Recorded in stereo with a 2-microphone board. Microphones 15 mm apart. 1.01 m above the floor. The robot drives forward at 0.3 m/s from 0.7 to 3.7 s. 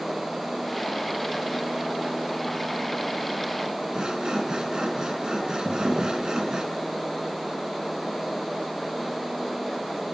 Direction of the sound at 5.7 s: 60° right (ahead or behind).